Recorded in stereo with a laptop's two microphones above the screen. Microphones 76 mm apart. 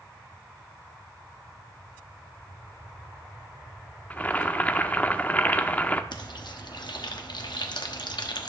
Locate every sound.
4.1 s boiling: 20° left (ahead or behind), 0.6 m
6.1 s frying: 70° left (ahead or behind), 1.0 m